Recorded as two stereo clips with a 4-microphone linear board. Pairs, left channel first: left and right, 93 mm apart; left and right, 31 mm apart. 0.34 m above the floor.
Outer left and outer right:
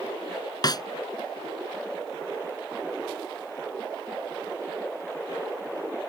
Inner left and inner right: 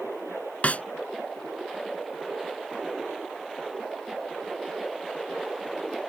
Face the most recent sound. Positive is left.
turn(degrees=45)  # may be behind; listen again after turning